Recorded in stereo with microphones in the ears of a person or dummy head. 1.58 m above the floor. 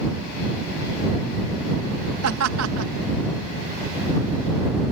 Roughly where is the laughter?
Right.